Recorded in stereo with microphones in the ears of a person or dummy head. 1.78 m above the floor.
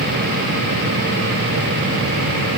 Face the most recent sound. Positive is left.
No sound to turn to.